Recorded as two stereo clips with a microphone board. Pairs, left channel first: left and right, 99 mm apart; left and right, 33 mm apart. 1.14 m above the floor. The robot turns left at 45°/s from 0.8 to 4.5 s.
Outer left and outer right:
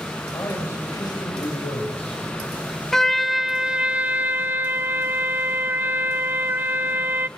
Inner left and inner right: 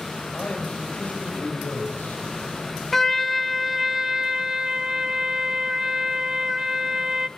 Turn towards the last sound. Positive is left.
turn(degrees=-20)  # may be behind; listen again after turning